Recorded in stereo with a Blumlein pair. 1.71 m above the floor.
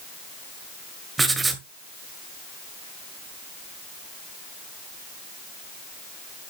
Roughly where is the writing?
Ahead.